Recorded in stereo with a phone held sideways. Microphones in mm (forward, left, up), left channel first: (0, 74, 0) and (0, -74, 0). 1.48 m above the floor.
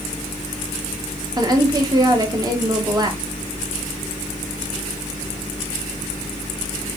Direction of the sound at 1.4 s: 25° right (ahead or behind).